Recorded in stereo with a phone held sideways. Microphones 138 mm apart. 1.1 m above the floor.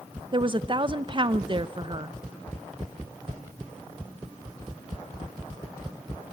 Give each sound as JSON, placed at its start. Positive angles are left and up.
{"t": 0.3, "sound": "a woman speaking", "side_deg": -35, "distance_m": 0.6}